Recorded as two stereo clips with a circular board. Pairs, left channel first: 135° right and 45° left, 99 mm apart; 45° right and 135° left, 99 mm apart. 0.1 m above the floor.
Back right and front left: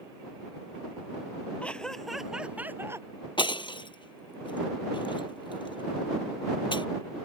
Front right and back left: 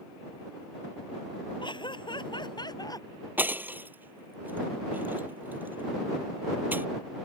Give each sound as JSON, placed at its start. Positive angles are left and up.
{"t": 1.6, "sound": "laughter", "azimuth_deg": -60}
{"t": 3.4, "sound": "breaking glass", "azimuth_deg": -155}